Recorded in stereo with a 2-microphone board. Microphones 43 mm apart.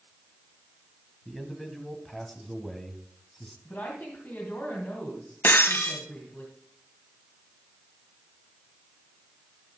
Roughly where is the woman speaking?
Left.